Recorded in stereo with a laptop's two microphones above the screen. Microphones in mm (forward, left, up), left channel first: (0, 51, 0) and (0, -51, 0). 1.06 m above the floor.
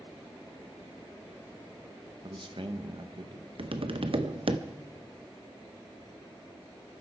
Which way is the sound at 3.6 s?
65° right (ahead or behind).